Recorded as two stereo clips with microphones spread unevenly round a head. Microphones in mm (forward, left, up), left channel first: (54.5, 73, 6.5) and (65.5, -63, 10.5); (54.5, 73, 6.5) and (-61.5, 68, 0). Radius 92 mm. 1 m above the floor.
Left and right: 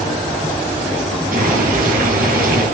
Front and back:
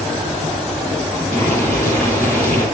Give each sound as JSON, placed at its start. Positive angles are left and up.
{"t": 1.3, "sound": "boiling", "azimuth_deg": -80, "distance_m": 4.5}